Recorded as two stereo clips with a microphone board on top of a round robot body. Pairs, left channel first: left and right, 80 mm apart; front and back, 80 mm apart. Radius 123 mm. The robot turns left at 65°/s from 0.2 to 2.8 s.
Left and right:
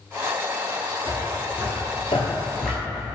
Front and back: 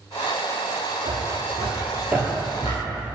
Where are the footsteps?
160° right, 1.4 m; by 3.0 s 35° right, 0.9 m.